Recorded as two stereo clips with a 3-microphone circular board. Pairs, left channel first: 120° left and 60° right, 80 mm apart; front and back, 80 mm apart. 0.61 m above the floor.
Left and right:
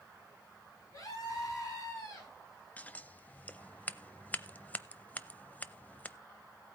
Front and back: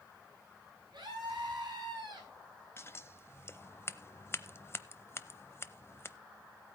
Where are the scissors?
50° left, 0.6 m.